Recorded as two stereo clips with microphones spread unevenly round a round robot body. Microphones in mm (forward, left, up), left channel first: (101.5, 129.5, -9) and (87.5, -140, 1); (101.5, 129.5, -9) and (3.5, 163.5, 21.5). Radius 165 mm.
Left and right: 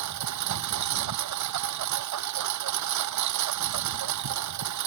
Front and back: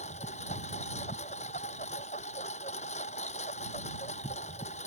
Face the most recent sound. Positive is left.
turn(degrees=-80)